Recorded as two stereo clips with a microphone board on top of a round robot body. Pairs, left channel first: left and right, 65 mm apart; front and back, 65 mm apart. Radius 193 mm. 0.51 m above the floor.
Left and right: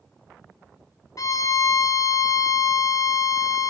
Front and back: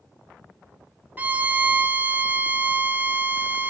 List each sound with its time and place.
1.2 s a violin: 120° left, 0.8 m